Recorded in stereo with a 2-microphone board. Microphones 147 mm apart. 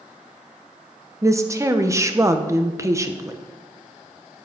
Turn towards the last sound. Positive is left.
turn(degrees=-20)  # may be behind; listen again after turning